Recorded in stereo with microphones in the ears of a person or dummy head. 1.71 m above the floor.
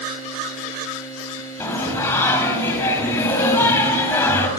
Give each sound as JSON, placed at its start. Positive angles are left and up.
{"t": 1.6, "sound": "singing", "side_deg": 15, "distance_m": 4.5}